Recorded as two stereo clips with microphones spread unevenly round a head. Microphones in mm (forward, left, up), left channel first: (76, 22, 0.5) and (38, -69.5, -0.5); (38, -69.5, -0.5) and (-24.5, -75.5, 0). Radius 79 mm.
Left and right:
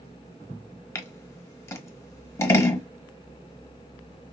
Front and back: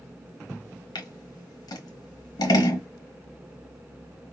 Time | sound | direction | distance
0.9 | scissors | 5° left | 1.3 m